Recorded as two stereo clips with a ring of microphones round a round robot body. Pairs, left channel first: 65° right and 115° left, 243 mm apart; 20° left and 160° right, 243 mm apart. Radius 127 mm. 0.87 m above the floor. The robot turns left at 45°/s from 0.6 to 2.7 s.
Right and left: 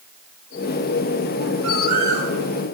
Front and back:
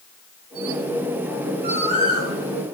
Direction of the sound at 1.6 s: 150° left.